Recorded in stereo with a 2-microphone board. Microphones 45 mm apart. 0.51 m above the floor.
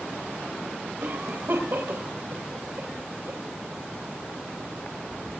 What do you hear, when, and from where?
1.0 s a cough: 60° right (ahead or behind), 3 m